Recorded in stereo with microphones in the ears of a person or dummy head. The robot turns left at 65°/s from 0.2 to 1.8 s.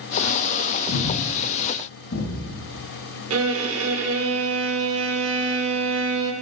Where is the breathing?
60° left (ahead or behind), 1.1 m.